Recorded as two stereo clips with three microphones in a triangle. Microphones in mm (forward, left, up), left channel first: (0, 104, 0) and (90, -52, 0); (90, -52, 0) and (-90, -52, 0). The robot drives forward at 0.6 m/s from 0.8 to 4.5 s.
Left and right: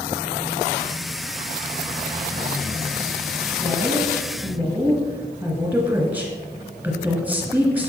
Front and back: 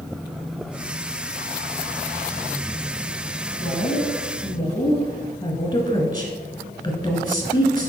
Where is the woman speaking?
5° left, 1.8 m.